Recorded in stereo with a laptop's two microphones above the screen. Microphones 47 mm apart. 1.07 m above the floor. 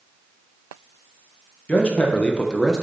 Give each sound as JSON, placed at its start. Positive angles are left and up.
{"t": 1.7, "sound": "a man speaking", "side_deg": 30, "distance_m": 1.2}